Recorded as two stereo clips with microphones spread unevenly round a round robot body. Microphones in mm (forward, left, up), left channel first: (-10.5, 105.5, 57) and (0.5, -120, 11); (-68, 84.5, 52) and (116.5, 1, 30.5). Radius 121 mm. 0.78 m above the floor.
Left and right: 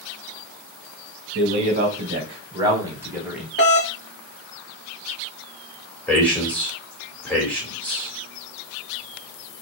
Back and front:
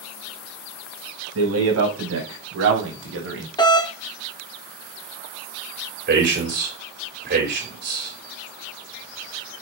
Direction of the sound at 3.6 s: 95° left.